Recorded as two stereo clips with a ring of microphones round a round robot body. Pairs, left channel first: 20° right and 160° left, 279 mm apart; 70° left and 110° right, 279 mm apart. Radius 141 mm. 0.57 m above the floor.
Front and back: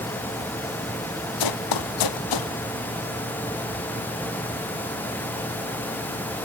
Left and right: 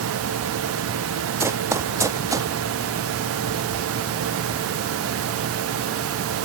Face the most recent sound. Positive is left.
turn(degrees=-35)